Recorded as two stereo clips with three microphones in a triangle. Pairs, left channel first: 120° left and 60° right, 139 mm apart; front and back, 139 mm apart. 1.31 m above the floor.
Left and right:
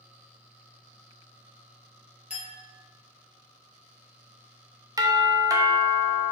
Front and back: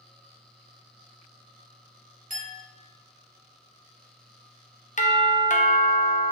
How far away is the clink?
About 2 m.